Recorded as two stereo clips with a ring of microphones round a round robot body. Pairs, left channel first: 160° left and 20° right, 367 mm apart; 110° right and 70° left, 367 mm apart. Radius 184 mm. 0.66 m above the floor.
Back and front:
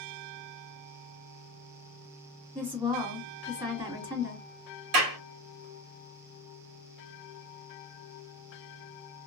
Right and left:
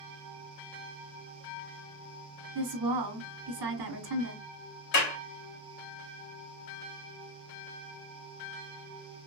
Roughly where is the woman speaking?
Ahead left.